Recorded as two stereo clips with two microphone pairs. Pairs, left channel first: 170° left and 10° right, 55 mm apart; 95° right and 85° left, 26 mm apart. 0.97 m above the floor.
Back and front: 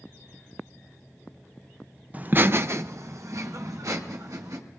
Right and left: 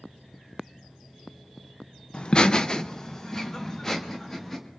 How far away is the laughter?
About 0.5 m.